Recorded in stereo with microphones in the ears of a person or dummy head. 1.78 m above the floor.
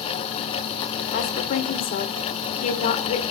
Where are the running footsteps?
I don't hear running footsteps.